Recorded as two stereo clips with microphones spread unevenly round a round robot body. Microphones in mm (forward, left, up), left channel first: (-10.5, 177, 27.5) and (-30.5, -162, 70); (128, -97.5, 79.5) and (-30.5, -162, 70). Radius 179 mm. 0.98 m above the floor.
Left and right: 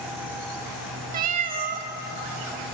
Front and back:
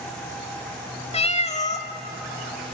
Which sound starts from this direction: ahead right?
A cat meowing, at 1.1 s.